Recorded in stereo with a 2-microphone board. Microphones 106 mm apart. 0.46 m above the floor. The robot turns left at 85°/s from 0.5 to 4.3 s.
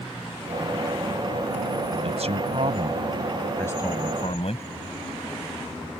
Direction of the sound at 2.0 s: 65° right.